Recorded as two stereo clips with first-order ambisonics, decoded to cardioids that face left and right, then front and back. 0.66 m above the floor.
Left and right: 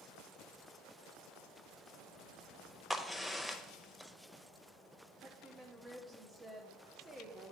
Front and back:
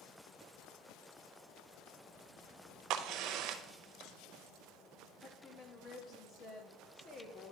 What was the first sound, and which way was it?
A crack, 175° left.